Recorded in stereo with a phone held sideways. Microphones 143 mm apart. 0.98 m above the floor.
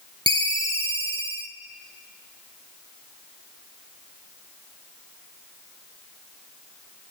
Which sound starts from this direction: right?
A ringtone, at 0.3 s.